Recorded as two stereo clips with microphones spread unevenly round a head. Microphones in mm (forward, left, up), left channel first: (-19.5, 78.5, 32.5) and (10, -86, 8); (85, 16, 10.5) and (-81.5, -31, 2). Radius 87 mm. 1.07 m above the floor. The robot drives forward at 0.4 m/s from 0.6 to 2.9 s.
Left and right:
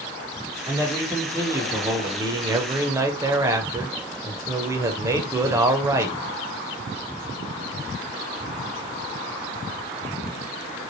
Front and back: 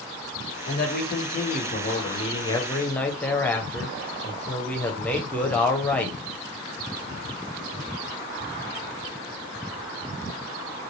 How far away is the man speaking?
About 1.1 m.